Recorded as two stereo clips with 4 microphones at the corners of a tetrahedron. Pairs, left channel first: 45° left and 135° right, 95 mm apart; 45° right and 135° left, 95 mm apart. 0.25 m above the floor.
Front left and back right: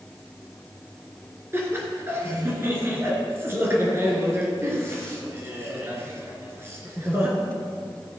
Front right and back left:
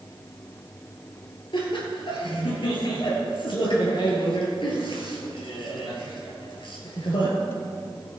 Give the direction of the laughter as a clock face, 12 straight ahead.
2 o'clock.